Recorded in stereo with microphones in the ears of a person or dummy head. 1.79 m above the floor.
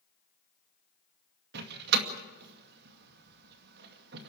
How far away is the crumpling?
I don't hear crumpling.